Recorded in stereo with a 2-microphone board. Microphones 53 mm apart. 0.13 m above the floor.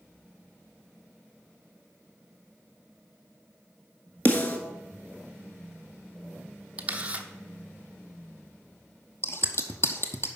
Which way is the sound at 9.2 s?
55° left (ahead or behind).